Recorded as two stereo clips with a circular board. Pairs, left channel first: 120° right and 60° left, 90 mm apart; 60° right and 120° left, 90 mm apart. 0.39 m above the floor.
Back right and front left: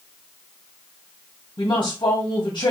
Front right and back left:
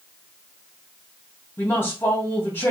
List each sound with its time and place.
1.6 s a woman speaking: 120° right, 2.0 m